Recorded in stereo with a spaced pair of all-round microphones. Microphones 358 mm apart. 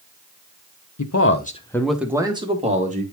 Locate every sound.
1.0 s a man speaking: 55° left (ahead or behind), 0.8 m; by 3.0 s 20° right (ahead or behind), 2 m